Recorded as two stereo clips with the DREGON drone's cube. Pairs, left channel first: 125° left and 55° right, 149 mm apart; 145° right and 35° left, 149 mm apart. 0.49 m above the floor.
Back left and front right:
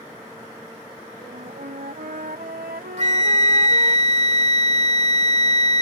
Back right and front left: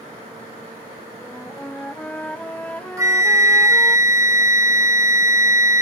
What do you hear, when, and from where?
1.2 s a flute: 65° right
3.0 s a flute: 30° right